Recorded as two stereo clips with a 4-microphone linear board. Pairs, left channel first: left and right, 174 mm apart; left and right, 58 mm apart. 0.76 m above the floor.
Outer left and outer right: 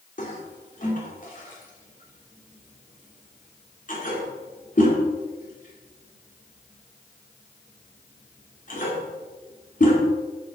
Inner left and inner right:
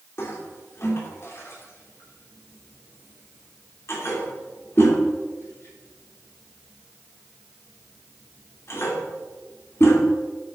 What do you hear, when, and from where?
0.2 s a toilet flushing: 50° left (ahead or behind), 2.5 m